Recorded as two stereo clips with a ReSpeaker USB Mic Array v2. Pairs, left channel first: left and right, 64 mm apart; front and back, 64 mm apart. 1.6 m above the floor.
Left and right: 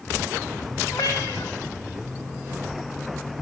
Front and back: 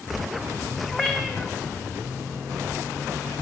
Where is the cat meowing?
80° left, 3.5 m.